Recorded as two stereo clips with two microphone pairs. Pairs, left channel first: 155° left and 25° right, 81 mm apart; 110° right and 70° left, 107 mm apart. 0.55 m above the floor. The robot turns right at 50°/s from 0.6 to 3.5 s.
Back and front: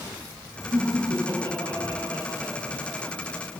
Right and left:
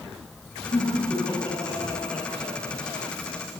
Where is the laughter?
85° right, 7.5 m; by 3.4 s 50° left, 7.5 m.